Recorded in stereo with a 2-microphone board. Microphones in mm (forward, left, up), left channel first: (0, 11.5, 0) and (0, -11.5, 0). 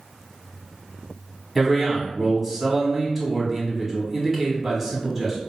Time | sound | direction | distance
1.6 | a man speaking | 10° right (ahead or behind) | 1.0 m